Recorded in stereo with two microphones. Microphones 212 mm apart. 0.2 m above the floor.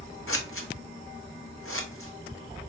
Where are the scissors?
80° left, 0.8 m.